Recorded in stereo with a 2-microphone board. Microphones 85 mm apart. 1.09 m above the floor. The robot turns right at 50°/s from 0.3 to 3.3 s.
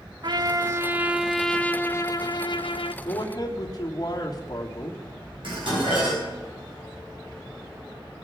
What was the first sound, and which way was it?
A trumpet, 55° right.